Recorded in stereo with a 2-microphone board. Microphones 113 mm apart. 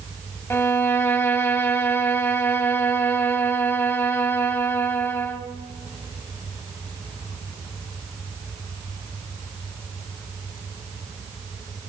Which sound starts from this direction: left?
A violin, at 0.5 s.